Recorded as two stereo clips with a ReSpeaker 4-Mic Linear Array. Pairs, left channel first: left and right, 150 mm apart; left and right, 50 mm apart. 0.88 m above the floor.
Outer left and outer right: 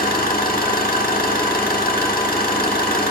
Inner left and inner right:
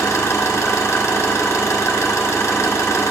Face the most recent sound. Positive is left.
turn(degrees=75)  # may be behind; listen again after turning